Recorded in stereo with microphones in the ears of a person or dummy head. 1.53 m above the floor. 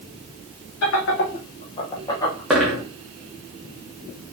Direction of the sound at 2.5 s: Centre (ahead or behind).